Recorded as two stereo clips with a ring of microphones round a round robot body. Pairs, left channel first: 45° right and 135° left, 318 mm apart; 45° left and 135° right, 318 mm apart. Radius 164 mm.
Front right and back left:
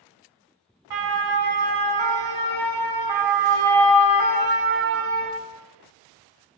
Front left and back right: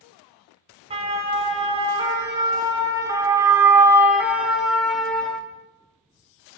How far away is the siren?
About 5.5 m.